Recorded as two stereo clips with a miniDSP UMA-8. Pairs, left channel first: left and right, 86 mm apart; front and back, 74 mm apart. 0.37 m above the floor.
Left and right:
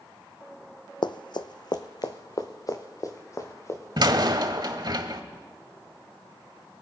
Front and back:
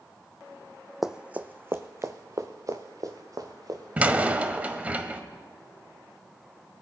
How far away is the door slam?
About 1.0 m.